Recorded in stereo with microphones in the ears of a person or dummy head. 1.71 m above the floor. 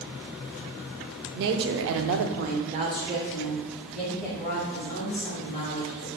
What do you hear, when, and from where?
1.4 s a woman speaking: 60° right (ahead or behind), 0.8 m; by 6.1 s 10° left (ahead or behind), 2.5 m